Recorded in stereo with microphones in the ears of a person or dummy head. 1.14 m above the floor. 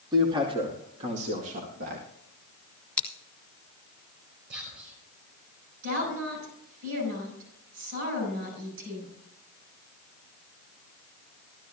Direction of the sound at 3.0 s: 5° left (ahead or behind).